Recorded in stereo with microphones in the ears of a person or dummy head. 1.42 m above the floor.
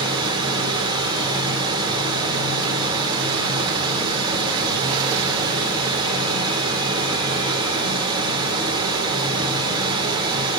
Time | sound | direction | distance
0.0 | running water | 25° right (ahead or behind) | 1.8 m